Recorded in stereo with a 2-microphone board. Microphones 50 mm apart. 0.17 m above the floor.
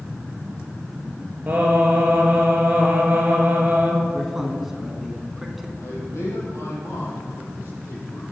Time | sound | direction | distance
1.5 | singing | 30° right (ahead or behind) | 2.5 m
4.1 | a man speaking | 5° right (ahead or behind) | 1.5 m
5.8 | a man speaking | 75° left (ahead or behind) | 5 m